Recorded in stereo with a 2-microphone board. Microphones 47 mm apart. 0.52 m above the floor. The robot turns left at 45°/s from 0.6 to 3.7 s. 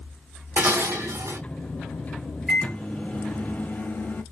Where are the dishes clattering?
45° right, 1.2 m; by 1.4 s 85° right, 1.2 m.